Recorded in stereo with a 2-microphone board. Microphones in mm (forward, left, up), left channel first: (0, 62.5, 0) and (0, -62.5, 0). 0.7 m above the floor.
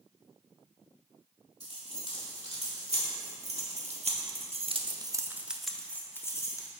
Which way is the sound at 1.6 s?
55° right (ahead or behind).